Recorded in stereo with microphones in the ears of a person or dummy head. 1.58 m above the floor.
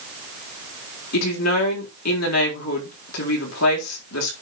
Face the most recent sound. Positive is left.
turn(degrees=85)